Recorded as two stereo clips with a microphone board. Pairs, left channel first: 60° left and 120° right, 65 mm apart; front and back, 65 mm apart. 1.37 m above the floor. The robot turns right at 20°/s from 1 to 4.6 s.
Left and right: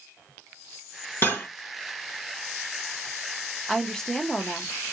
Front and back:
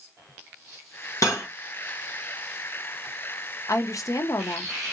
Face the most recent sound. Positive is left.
turn(degrees=-5)